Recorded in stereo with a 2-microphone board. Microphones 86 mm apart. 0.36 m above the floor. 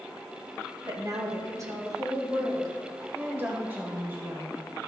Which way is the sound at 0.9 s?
45° right (ahead or behind).